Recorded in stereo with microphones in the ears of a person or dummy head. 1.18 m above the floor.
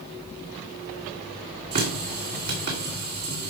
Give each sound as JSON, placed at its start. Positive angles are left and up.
{"t": 1.7, "sound": "a running tap", "side_deg": -50, "distance_m": 2.5}